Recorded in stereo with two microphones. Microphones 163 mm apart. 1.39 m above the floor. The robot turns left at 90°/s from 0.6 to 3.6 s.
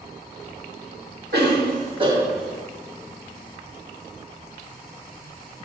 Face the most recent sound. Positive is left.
turn(degrees=70)